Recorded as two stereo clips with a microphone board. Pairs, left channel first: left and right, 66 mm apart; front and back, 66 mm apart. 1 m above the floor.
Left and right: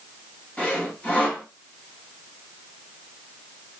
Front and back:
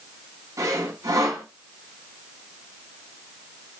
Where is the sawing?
155° left, 2 m.